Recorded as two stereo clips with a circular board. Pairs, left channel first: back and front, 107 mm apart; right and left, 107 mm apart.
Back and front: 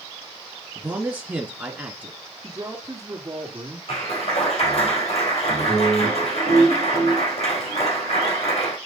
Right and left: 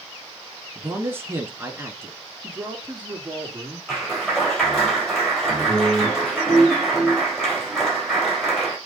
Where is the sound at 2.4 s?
25° left, 1.8 m.